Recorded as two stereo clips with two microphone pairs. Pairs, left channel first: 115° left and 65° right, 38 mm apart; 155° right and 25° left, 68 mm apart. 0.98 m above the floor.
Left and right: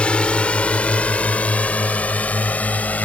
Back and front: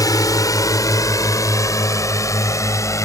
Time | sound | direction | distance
0.0 | a drone | 175° left | ?